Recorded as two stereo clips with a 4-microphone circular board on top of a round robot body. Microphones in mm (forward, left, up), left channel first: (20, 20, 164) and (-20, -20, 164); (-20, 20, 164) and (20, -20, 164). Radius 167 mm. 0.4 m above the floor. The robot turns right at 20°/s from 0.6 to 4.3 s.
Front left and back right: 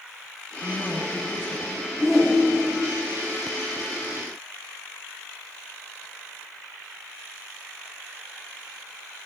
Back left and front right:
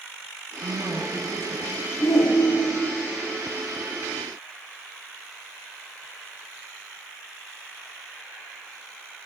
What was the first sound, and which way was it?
A woman speaking, 10° right.